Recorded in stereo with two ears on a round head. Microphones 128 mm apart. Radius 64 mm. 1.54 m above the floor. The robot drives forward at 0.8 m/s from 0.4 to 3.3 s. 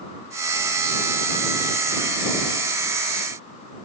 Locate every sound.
Only background noise.